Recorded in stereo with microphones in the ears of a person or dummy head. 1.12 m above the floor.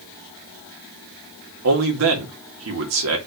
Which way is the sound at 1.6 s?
70° right (ahead or behind).